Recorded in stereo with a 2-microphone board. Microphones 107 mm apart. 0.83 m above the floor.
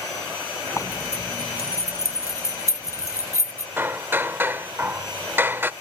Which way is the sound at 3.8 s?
20° right (ahead or behind).